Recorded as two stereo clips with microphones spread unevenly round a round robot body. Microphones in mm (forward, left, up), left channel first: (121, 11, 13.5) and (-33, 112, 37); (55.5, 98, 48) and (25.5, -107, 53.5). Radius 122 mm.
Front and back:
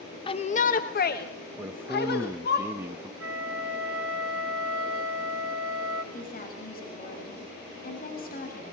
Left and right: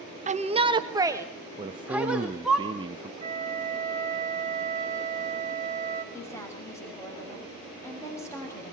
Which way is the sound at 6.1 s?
5° left.